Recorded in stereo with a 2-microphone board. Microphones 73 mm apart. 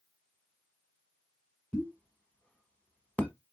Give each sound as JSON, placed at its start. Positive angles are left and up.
{"t": 1.7, "sound": "a pop", "side_deg": 15, "distance_m": 1.2}